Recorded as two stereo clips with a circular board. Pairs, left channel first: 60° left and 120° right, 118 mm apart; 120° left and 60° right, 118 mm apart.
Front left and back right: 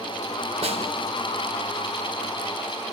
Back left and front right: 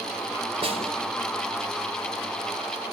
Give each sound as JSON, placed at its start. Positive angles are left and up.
{"t": 0.6, "sound": "a snare drum", "azimuth_deg": -95, "distance_m": 4.0}